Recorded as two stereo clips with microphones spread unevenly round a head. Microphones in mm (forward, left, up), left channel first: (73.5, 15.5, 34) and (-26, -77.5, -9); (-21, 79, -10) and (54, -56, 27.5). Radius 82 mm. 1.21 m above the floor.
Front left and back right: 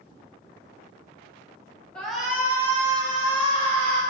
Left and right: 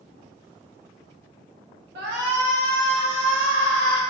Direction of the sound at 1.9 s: 40° right.